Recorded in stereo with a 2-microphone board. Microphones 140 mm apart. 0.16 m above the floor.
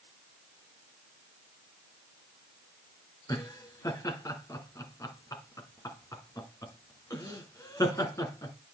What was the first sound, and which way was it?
Laughter, 25° left (ahead or behind).